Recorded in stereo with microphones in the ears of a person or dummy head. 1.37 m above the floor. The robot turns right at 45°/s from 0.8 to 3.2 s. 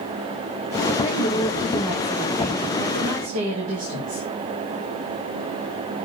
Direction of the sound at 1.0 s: 150° left.